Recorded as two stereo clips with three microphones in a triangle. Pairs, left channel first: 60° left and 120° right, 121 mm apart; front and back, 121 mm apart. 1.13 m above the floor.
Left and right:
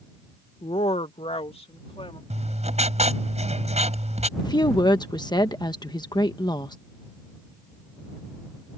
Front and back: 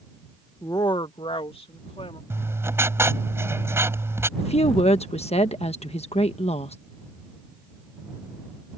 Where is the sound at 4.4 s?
10° left.